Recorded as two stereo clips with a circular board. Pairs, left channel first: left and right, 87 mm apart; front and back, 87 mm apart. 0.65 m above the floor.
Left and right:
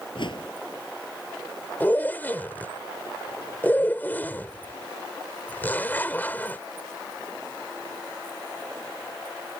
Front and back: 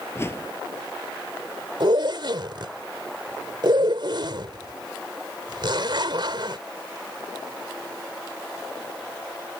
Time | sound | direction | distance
0.1 | a whoosh | 60° left | ?
1.8 | a zipper | 155° left | ?